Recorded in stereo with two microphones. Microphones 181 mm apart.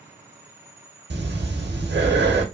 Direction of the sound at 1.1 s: 75° right (ahead or behind).